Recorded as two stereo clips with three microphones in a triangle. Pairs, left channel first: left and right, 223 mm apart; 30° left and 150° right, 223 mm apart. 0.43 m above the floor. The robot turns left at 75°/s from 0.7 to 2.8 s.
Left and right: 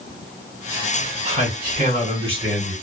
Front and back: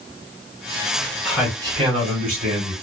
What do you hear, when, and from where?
1.2 s a man speaking: 60° right, 1.7 m; by 2.7 s 170° right, 1.7 m